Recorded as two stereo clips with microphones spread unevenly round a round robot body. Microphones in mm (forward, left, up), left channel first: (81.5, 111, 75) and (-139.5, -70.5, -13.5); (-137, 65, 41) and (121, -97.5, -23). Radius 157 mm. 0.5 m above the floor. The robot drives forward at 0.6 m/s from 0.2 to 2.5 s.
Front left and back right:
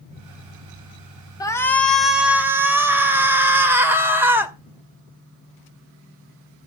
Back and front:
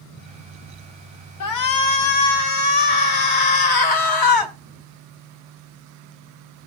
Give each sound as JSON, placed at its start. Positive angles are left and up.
{"t": 1.4, "sound": "a shout", "azimuth_deg": 130, "distance_m": 1.4}